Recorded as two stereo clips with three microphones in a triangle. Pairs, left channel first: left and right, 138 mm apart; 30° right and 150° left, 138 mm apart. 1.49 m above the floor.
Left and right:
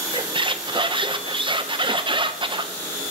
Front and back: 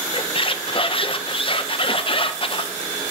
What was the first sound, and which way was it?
A squeak, 55° right.